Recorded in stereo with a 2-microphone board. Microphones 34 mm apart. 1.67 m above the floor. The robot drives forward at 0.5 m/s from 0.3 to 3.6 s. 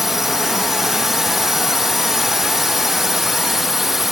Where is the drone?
10° right (ahead or behind).